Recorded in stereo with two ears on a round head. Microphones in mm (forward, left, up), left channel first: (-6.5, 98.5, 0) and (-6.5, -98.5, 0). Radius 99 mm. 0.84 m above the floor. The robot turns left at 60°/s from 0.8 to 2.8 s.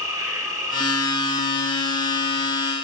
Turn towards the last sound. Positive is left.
turn(degrees=-135)